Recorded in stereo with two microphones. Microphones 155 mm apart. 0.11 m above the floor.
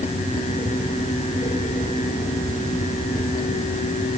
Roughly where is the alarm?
I don't hear an alarm.